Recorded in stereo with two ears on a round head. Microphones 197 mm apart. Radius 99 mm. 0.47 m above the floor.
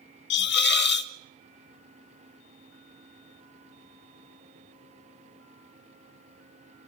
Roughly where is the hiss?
Left.